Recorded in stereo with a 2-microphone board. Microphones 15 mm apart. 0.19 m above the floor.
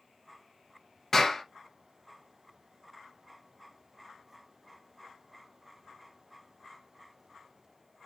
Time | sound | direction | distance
1.1 | a clap | 25° left (ahead or behind) | 2 m